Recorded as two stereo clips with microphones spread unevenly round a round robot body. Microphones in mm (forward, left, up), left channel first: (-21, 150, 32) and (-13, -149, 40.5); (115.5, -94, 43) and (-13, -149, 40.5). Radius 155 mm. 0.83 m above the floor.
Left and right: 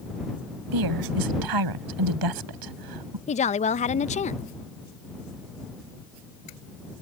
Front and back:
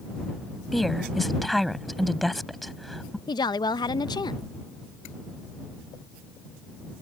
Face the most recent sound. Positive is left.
turn(degrees=50)